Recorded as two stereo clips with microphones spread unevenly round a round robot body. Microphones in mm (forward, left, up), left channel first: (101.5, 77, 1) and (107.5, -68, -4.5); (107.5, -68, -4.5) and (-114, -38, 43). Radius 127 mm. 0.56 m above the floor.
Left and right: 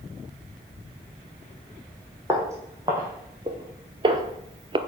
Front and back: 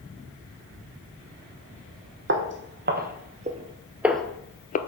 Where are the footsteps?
165° right, 1.2 m; by 4.8 s 60° right, 0.6 m.